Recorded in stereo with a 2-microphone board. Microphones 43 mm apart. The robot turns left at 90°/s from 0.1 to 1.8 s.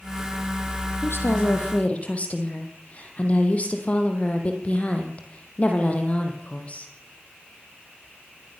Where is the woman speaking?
105° left, 4 m; by 6.9 s 35° left, 4 m.